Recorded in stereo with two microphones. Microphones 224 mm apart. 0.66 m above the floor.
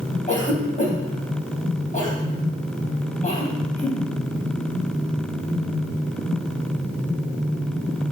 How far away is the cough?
About 3.5 m.